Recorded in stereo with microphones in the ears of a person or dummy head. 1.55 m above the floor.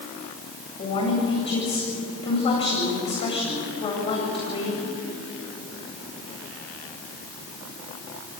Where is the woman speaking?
35° left (ahead or behind), 8.5 m.